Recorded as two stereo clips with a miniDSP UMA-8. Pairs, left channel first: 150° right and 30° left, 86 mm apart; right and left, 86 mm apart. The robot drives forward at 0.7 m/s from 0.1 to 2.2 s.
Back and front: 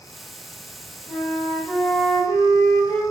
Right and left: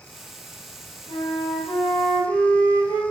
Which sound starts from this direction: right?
A flute, at 1.1 s.